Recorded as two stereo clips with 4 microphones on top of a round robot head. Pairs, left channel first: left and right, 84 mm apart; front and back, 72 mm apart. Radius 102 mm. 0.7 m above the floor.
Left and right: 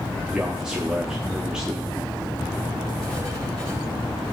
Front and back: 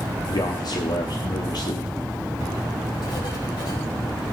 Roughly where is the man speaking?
Ahead.